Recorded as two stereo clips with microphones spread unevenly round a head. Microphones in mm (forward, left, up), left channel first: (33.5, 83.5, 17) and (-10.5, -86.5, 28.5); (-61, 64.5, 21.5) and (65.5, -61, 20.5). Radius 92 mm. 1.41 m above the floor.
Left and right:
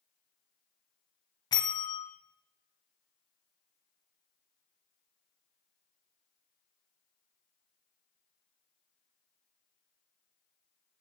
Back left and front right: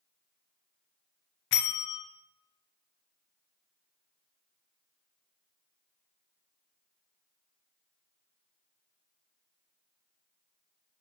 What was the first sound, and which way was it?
A bell, 140° left.